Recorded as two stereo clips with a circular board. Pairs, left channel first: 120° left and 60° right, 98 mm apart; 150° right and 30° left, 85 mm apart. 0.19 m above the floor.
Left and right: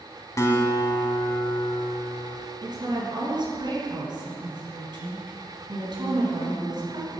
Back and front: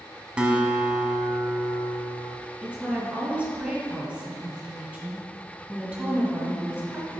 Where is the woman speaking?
45° right, 1.8 m.